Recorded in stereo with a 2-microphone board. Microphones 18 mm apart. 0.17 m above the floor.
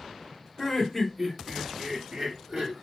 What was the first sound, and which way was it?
Laughter, 15° left (ahead or behind).